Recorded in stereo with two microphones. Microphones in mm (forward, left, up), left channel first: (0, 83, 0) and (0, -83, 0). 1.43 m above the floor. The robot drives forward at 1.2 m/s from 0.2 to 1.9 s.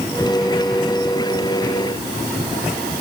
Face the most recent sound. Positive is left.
No sound to turn to.